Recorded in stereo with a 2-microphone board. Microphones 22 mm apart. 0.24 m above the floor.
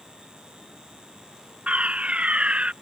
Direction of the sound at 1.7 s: 65° right (ahead or behind).